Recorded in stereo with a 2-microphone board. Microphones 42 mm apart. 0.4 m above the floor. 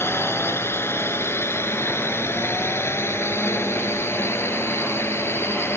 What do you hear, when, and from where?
0.0 s a drone: 75° left (ahead or behind)